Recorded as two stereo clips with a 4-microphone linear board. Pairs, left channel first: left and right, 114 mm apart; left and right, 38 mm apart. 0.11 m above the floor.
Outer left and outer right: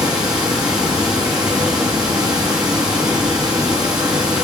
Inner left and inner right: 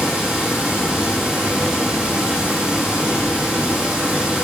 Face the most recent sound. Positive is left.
turn(degrees=-35)  # may be behind; listen again after turning